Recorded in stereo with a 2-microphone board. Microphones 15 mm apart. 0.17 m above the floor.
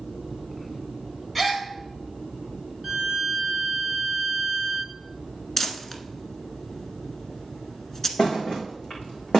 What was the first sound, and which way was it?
A gasp, centre (ahead or behind).